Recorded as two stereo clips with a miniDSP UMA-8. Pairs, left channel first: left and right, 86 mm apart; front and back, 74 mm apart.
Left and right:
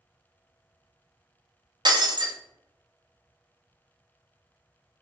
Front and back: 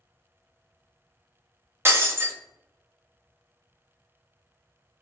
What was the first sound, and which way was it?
Breaking glass, 125° right.